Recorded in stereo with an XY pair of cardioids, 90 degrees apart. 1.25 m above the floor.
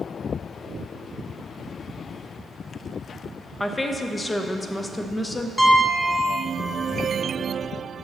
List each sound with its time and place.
3.6 s a woman speaking: 20° left, 0.8 m
5.6 s a piano: 10° left, 1.0 m